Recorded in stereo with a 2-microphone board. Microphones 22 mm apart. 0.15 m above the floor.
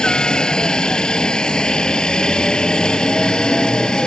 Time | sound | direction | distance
0.0 | a helicopter | 40° left (ahead or behind) | ?